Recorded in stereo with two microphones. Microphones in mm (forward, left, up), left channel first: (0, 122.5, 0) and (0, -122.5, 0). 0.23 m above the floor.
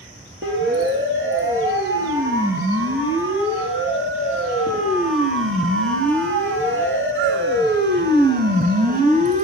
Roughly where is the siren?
Right.